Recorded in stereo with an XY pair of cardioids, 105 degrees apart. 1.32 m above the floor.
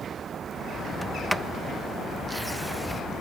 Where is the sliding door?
Straight ahead.